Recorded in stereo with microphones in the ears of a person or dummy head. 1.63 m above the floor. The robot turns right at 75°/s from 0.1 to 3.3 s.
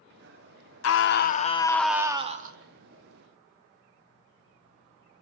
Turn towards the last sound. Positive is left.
turn(degrees=-70)